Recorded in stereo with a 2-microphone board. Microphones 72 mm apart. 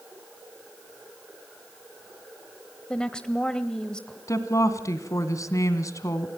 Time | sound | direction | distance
2.9 | a woman speaking | 15° left (ahead or behind) | 0.9 m
4.3 | a woman speaking | 50° left (ahead or behind) | 2 m